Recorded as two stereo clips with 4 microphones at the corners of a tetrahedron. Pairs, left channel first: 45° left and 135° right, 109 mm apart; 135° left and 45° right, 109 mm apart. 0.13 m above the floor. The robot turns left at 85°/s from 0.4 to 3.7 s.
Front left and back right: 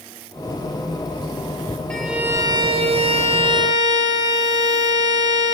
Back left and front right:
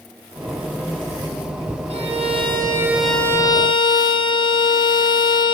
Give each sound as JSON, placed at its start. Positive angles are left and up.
{"t": 1.9, "sound": "a violin", "azimuth_deg": -35, "distance_m": 4.5}